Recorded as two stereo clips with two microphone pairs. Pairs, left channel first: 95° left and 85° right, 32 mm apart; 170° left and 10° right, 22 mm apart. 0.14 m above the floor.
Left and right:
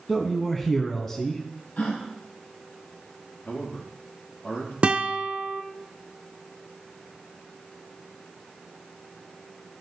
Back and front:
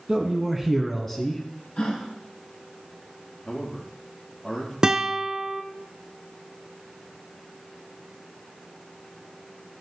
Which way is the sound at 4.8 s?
50° right.